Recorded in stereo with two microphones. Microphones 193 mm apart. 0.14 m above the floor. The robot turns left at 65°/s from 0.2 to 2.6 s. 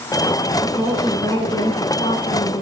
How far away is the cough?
I don't hear a cough.